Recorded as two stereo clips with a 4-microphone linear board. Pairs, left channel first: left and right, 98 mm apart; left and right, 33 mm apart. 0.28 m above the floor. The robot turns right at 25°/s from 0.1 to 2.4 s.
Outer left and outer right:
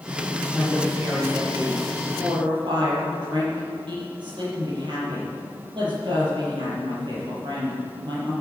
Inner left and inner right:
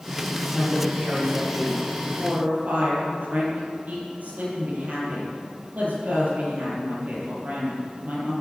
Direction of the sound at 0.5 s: 170° right.